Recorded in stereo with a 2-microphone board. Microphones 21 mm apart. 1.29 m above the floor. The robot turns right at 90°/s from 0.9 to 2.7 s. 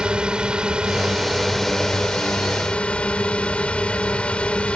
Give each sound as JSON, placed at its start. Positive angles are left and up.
{"t": 0.0, "sound": "a drone", "azimuth_deg": -55}